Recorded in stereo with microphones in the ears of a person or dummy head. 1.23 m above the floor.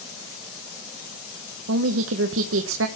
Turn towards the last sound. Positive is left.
turn(degrees=-70)  # may be behind; listen again after turning